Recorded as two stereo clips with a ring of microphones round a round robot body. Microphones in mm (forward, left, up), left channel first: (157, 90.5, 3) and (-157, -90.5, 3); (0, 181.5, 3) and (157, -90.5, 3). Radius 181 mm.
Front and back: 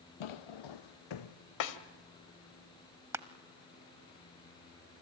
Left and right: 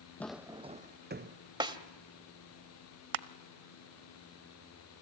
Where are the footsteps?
35° left, 0.7 m; by 1.4 s 5° right, 1.3 m.